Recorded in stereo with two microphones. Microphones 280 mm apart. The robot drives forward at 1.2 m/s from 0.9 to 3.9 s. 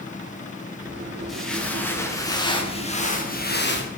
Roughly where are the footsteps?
Centre.